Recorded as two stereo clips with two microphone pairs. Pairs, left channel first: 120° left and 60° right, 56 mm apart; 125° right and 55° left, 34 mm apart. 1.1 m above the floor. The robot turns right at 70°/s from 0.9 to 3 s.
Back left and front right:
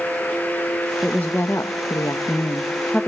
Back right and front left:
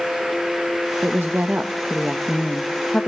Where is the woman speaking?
45° left, 1.0 m; by 3.1 s 175° right, 1.0 m.